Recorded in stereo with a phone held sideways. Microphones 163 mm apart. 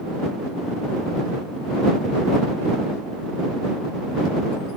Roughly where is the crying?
I don't hear crying.